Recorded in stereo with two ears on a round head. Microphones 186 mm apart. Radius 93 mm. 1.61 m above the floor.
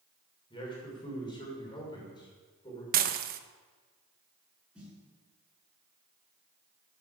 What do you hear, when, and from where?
0.5 s a man speaking: 25° left (ahead or behind), 6.5 m
2.9 s dishes clattering: 45° right (ahead or behind), 1.1 m
4.8 s a snare drum: 5° right (ahead or behind), 8 m